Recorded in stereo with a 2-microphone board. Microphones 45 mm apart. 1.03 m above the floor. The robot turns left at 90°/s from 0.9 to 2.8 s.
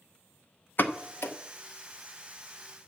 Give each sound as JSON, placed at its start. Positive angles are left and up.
{"t": 0.8, "sound": "a pop", "side_deg": 45, "distance_m": 0.7}